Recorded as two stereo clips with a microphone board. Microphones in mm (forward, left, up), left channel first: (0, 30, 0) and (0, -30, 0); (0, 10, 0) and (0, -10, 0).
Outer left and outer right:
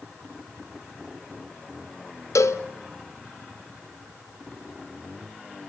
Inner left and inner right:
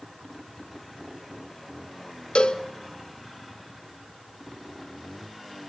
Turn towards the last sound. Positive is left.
turn(degrees=55)  # may be behind; listen again after turning